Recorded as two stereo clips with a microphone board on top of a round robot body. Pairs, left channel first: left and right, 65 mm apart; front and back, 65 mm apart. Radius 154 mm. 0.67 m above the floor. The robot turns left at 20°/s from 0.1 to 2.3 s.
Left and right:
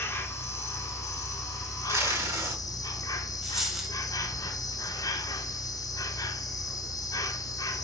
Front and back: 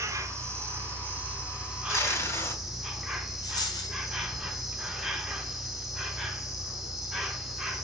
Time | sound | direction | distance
0.0 | an insect | 140° left | 1.5 m
1.9 | tape being pulled | 45° right | 3.5 m
3.4 | a dropped coin | 5° right | 2.5 m